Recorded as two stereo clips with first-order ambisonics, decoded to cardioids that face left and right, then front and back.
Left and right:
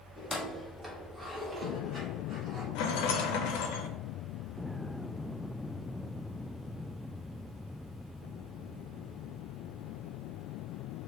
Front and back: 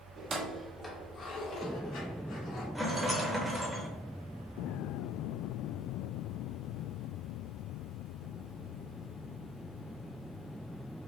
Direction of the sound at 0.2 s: 160° left.